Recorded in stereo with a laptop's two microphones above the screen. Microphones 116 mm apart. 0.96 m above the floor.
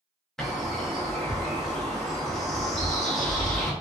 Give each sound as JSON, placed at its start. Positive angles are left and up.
{"t": 0.4, "sound": "a bird", "side_deg": 5, "distance_m": 0.6}